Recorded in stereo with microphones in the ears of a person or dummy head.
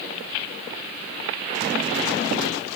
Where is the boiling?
I don't hear boiling.